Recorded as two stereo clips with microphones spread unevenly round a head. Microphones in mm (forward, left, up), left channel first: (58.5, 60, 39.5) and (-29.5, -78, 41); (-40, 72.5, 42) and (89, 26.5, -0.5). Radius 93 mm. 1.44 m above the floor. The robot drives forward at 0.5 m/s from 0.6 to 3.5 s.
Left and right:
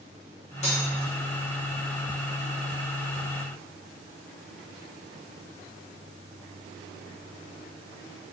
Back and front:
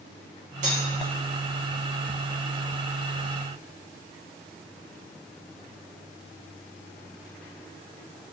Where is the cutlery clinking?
15° left, 1.2 m.